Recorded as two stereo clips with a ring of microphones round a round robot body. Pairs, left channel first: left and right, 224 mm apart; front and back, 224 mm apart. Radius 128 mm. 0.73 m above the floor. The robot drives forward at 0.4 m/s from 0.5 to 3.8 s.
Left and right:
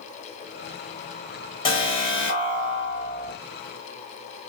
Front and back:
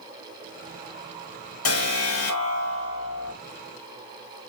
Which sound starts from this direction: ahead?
An alarm, at 1.6 s.